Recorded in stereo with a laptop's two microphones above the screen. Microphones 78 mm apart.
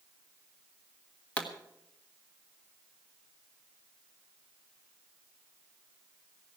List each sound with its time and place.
1.4 s a pop: 15° left (ahead or behind), 1.4 m